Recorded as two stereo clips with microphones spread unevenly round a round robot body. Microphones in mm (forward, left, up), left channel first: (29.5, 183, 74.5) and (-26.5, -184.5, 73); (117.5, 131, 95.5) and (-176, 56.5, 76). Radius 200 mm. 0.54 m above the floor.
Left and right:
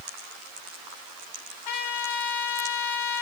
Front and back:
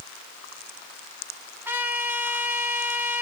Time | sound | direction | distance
1.6 | a trumpet | 110° left | 3 m